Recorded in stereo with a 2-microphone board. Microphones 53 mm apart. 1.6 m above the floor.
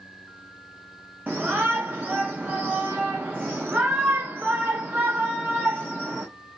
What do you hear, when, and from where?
1.3 s a shout: 30° right (ahead or behind), 0.6 m